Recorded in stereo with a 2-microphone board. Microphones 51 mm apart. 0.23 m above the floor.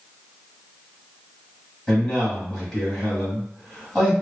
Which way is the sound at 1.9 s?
15° left (ahead or behind).